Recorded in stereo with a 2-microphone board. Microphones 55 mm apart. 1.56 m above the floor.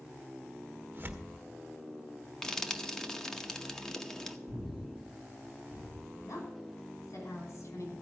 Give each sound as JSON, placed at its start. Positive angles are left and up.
{"t": 0.9, "sound": "tearing paper", "side_deg": -35, "distance_m": 1.3}
{"t": 2.4, "sound": "frying", "side_deg": 10, "distance_m": 0.9}
{"t": 4.5, "sound": "breathing", "side_deg": 60, "distance_m": 5.0}
{"t": 6.2, "sound": "a woman speaking", "side_deg": 80, "distance_m": 5.5}